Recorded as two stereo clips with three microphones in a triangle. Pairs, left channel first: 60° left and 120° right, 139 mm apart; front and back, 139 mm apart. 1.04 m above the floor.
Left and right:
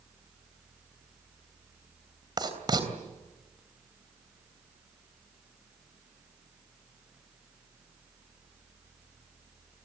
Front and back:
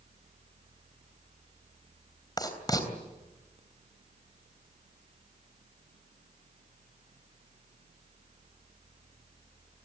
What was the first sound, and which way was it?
Writing, 60° right.